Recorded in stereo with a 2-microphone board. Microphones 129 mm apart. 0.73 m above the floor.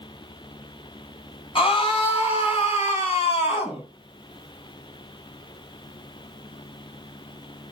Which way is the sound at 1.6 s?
45° left (ahead or behind).